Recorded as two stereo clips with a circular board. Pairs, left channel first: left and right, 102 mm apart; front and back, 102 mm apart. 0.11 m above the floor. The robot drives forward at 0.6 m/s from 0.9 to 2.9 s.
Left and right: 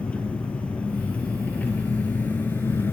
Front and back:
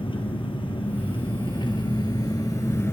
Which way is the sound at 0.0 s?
15° left.